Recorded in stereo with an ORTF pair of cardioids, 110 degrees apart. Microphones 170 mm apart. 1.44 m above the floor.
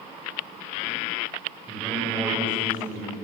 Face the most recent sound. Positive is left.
turn(degrees=-15)